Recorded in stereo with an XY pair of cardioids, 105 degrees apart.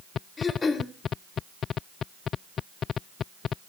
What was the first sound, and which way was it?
Throat clearing, 30° left.